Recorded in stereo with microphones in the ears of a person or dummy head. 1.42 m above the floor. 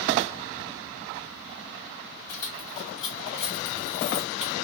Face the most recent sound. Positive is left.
turn(degrees=-5)  # may be behind; listen again after turning